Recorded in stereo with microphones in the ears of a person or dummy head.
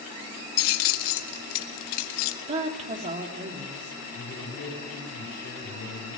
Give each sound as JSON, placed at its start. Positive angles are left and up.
{"t": 0.6, "sound": "keys jangling", "side_deg": 45, "distance_m": 1.1}
{"t": 2.5, "sound": "a woman speaking", "side_deg": -35, "distance_m": 3.5}
{"t": 4.1, "sound": "a man speaking", "side_deg": 60, "distance_m": 8.5}